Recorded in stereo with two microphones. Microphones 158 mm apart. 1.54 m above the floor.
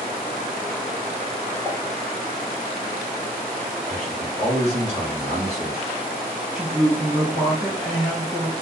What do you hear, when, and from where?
1.6 s a pop: 10° right (ahead or behind), 1.4 m
3.9 s a man speaking: 40° right (ahead or behind), 1.3 m
6.5 s a woman speaking: 15° right (ahead or behind), 1.5 m